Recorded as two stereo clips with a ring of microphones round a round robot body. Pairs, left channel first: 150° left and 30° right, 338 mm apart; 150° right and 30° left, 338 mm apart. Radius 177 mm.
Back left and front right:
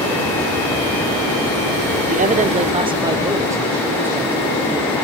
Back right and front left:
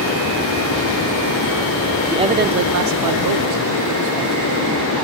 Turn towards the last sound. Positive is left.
turn(degrees=55)